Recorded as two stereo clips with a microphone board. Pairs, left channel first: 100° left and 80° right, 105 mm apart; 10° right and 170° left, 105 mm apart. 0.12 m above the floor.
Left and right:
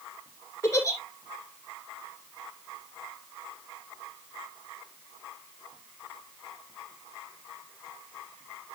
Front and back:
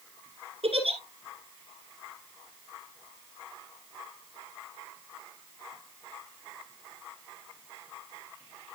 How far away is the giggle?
About 1.7 m.